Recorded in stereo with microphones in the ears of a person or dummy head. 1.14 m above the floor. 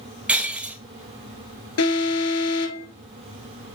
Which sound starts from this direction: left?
An alarm, at 1.8 s.